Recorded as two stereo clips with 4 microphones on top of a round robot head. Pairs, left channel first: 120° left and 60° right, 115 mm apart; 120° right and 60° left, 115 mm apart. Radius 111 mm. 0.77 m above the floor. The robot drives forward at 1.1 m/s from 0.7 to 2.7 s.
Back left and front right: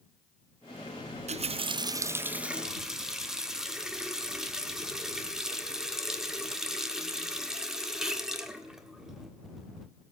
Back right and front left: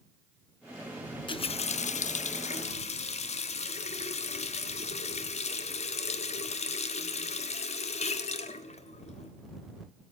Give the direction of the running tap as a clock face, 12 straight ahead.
3 o'clock.